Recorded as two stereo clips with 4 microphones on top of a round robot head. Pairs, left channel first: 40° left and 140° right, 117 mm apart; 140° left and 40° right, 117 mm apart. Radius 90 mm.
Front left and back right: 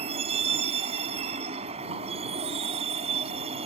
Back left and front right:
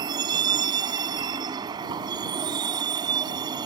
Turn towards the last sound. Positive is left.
turn(degrees=-100)